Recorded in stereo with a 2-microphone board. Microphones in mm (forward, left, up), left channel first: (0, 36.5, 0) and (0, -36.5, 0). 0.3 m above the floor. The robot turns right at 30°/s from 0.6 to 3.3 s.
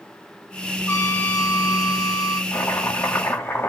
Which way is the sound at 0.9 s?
50° left.